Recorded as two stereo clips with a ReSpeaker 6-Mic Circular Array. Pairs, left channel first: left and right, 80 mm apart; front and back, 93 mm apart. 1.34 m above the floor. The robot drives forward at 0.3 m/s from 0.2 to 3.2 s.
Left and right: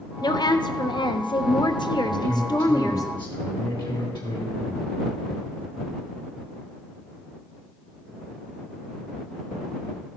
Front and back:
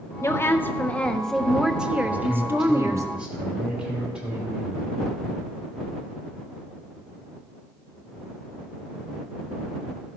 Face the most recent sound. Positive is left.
turn(degrees=100)